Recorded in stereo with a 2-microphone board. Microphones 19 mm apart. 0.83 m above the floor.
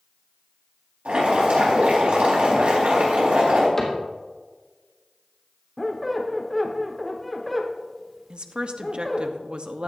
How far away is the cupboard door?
About 2.5 m.